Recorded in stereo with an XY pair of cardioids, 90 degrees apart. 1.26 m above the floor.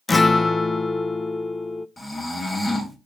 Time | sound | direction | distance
0.1 | a guitar | 30° left | 0.6 m
2.0 | snoring | 30° left | 2.5 m